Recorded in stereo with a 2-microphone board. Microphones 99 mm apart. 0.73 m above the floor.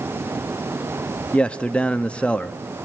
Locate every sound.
1.3 s a man speaking: 10° left (ahead or behind), 0.8 m